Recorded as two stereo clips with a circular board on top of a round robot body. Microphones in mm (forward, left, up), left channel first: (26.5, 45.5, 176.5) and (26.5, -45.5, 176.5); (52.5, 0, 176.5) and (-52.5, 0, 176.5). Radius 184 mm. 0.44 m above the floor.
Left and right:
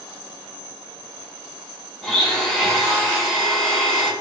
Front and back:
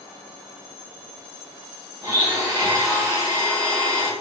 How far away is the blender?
About 1.4 m.